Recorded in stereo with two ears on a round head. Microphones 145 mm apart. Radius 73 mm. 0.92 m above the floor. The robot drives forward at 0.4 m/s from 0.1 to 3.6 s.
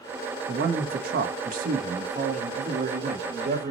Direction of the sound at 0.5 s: 60° right (ahead or behind).